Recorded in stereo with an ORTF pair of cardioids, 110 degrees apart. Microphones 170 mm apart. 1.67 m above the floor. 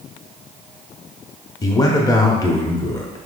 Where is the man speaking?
20° left, 0.8 m.